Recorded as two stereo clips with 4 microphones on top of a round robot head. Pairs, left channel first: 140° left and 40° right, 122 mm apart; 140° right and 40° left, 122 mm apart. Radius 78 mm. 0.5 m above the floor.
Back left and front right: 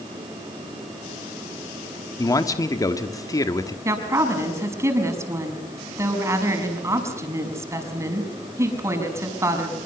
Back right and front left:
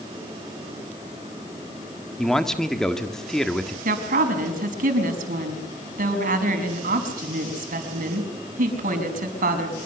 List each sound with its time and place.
2.2 s a man speaking: 135° left, 1.4 m
3.9 s a woman speaking: 30° left, 5.5 m